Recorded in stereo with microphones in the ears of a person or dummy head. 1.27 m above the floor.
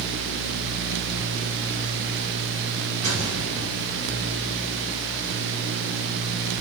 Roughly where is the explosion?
Right.